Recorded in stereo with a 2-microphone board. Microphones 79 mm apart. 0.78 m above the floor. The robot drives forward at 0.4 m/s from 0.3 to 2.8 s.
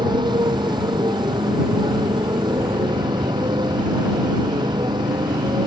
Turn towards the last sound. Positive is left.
turn(degrees=-90)